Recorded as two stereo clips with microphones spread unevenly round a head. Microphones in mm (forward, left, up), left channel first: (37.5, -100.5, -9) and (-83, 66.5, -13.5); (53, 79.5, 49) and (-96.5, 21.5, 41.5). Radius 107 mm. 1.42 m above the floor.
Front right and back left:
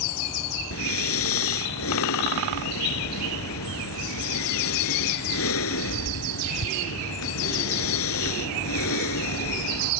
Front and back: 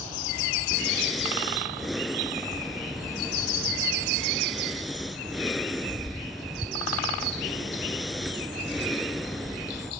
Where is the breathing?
70° right.